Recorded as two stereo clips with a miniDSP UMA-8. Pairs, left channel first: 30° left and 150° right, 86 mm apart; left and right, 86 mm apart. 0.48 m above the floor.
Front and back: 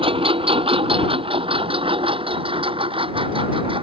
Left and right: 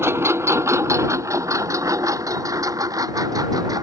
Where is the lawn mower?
150° right; by 3.9 s 135° right.